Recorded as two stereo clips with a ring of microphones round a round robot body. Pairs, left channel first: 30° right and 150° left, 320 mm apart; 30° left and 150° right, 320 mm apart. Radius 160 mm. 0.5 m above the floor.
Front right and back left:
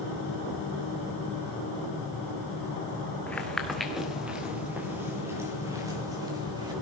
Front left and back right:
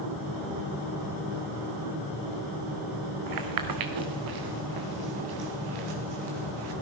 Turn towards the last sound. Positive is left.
turn(degrees=-130)